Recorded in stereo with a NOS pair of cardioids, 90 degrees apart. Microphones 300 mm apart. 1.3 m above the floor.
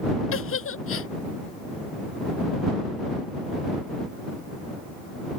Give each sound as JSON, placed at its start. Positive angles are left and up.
{"t": 0.3, "sound": "a giggle", "azimuth_deg": 45}